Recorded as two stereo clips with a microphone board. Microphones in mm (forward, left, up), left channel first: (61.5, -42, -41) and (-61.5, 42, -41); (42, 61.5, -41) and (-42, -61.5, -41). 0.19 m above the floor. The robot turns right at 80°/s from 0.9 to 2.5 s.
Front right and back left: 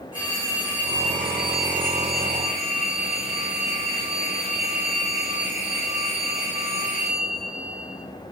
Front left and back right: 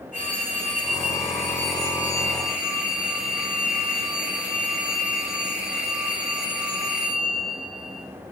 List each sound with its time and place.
0.1 s a phone ringing: 25° left, 5.5 m; by 8.0 s 150° left, 5.5 m